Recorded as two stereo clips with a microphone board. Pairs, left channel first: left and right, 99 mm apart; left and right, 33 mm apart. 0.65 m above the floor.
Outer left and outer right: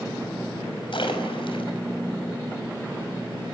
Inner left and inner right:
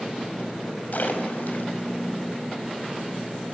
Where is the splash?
60° left (ahead or behind), 5 m.